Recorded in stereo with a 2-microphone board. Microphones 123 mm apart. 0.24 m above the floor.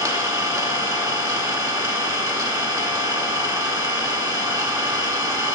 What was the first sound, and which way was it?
An engine running, 25° right (ahead or behind).